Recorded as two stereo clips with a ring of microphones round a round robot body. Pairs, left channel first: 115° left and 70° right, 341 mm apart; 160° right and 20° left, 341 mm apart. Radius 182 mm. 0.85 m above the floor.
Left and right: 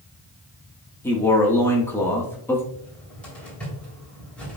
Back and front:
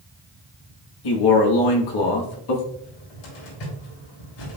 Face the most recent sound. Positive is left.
turn(degrees=-160)